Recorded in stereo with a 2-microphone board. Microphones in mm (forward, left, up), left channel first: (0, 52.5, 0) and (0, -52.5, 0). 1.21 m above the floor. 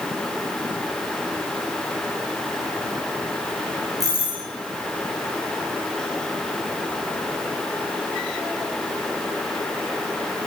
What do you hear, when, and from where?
4.0 s a doorbell: 35° right (ahead or behind), 8 m